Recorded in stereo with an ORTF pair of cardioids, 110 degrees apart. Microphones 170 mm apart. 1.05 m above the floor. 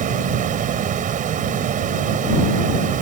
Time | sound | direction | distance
0.0 | running water | 50° right | ?